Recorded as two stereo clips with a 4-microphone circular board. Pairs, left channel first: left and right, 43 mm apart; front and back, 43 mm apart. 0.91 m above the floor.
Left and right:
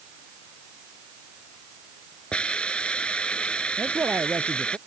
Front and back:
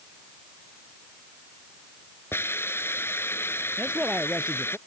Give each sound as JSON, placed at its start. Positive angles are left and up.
{"t": 2.3, "sound": "a hiss", "azimuth_deg": 25}
{"t": 3.8, "sound": "a man speaking", "azimuth_deg": -110}